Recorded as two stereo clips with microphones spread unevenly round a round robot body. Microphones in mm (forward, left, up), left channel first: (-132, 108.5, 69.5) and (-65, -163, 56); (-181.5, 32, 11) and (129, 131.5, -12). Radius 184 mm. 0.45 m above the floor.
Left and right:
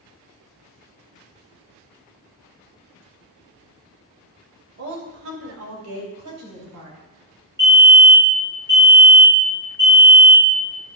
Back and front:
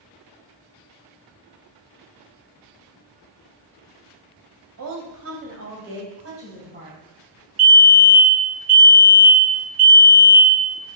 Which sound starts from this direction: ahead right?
A woman speaking, at 4.8 s.